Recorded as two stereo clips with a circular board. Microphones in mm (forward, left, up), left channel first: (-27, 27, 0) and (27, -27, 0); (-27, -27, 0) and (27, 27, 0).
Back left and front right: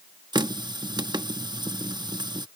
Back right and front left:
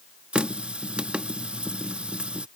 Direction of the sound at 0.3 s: 30° right.